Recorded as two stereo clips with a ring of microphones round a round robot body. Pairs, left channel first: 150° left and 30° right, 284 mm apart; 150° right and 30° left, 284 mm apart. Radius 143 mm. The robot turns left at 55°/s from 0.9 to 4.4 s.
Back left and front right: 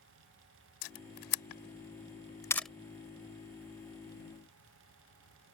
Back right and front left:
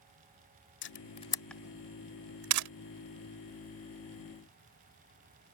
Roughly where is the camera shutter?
Behind.